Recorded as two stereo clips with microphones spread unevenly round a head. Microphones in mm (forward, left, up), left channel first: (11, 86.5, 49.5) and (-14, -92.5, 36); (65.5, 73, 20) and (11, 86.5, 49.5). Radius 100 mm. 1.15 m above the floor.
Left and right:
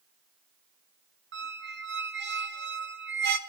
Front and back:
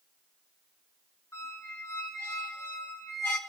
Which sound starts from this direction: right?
A squeak, at 1.3 s.